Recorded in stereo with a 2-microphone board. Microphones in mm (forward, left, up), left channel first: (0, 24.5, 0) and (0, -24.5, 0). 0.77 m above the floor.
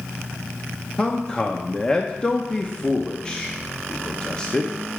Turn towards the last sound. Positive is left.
turn(degrees=20)  # may be behind; listen again after turning